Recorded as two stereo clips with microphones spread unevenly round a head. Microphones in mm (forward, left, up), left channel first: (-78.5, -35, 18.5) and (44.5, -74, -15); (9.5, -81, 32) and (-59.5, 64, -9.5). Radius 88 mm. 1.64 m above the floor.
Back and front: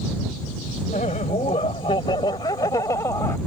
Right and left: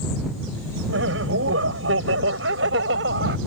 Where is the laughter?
105° left; by 3.4 s 85° left.